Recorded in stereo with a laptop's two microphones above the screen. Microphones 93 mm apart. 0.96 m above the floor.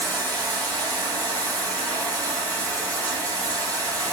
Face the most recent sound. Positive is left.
turn(degrees=15)  # may be behind; listen again after turning